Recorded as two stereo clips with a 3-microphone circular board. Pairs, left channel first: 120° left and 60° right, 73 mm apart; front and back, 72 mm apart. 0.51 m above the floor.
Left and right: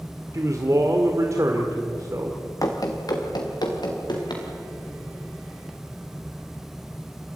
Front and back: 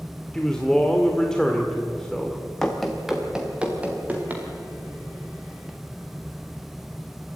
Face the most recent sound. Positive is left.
turn(degrees=115)